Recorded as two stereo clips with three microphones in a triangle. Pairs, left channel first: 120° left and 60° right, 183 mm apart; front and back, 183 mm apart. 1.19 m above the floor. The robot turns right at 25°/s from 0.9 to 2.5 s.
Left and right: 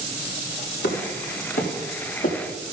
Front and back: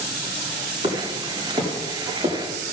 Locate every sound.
0.8 s footsteps: 115° left, 4.5 m; by 2.4 s 130° left, 4 m